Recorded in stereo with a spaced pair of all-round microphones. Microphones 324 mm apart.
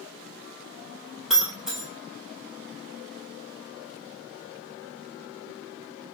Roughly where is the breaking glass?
Centre.